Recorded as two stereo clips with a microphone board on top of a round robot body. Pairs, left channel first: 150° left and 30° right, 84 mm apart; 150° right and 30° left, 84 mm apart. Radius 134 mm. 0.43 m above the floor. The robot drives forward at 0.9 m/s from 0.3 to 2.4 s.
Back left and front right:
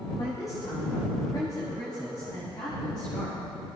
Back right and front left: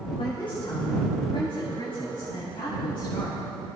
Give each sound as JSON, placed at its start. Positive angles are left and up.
{"t": 0.2, "sound": "a woman speaking", "azimuth_deg": -160, "distance_m": 2.0}